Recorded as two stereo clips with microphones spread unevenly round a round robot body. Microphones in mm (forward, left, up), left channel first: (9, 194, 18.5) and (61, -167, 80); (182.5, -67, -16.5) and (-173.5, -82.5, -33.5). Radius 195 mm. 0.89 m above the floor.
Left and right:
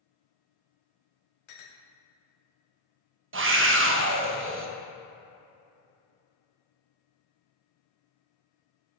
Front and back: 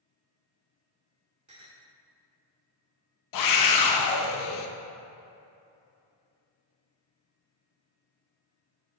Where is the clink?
105° left, 1.1 m.